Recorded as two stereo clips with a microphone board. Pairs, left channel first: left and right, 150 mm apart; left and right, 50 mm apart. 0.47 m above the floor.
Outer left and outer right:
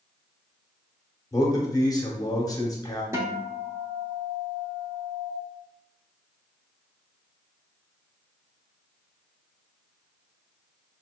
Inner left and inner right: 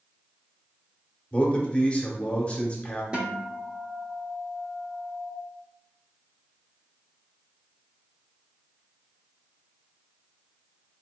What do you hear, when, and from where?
1.3 s a man speaking: 25° left (ahead or behind), 0.8 m
3.1 s a guitar: 20° right (ahead or behind), 0.6 m